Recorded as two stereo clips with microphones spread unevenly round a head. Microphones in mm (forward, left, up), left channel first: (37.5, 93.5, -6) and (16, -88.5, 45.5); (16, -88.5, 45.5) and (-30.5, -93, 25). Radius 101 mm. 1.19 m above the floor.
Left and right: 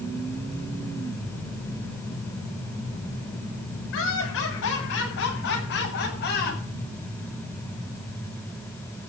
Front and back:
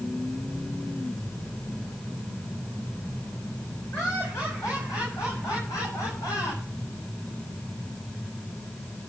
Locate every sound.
3.9 s laughter: 70° left, 8.5 m; by 6.6 s 45° left, 7 m